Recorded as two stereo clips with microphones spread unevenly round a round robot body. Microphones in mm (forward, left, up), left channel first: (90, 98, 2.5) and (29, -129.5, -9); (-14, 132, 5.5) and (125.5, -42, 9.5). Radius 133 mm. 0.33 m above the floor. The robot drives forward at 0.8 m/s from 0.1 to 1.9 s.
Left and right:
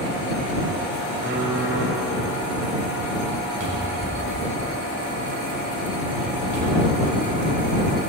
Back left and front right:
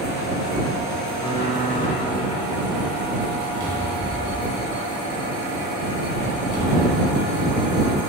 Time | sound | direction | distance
1.2 | typing on a keyboard | 155° right | 5 m
3.6 | a cupboard door | 110° right | 3 m